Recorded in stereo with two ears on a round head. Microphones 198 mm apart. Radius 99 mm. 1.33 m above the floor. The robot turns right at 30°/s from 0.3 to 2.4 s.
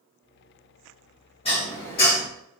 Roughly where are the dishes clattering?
Left.